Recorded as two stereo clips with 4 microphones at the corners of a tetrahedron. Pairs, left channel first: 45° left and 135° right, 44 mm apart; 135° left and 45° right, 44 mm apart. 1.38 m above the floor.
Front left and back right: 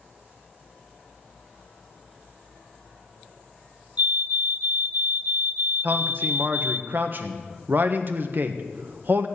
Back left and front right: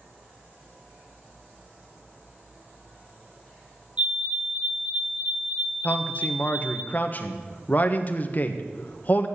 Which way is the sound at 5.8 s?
175° right.